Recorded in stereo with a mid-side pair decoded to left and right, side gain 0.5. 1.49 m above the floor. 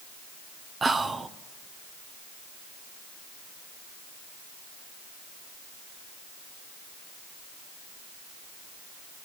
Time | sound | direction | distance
0.8 | whispering | 35° right | 0.6 m